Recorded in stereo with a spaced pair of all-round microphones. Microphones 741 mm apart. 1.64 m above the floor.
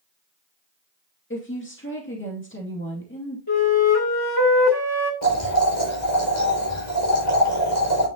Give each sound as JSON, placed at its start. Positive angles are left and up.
{"t": 1.3, "sound": "a woman speaking", "side_deg": 15, "distance_m": 2.5}
{"t": 3.5, "sound": "a flute", "side_deg": 30, "distance_m": 2.0}
{"t": 5.2, "sound": "boiling", "side_deg": 40, "distance_m": 5.5}